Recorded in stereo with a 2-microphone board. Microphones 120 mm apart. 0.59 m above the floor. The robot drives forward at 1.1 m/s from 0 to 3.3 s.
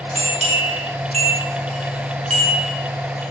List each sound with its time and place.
0.1 s a bell: 70° right (ahead or behind), 4.5 m; by 3.2 s 60° right (ahead or behind), 5 m